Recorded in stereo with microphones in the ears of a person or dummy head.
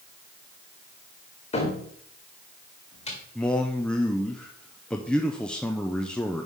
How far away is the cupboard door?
About 1.6 m.